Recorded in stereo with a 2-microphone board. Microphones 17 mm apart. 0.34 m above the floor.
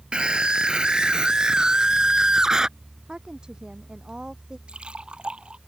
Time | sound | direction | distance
0.1 | a scream | 65° right (ahead or behind) | ?
3.1 | a woman speaking | 55° right (ahead or behind) | ?
4.7 | a splash | 85° right | ?